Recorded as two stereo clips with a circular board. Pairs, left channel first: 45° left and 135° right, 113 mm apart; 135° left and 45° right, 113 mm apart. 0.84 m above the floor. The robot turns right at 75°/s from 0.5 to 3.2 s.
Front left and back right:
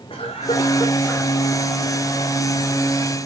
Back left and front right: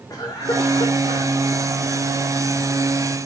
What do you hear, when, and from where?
0.1 s a cough: 75° left, 3.5 m; by 1.3 s 135° left, 3.5 m